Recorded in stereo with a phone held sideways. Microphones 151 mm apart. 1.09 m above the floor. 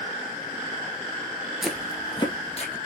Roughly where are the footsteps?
Centre.